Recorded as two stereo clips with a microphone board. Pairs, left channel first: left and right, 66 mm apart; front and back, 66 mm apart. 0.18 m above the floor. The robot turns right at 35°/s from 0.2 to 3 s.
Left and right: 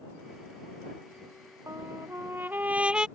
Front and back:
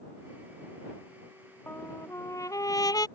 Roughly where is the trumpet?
Ahead right.